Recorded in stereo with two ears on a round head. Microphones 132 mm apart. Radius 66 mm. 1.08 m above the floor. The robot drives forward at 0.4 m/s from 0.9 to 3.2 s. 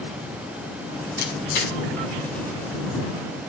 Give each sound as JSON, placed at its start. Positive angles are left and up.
{"t": 1.2, "sound": "a camera shutter", "side_deg": 75, "distance_m": 6.5}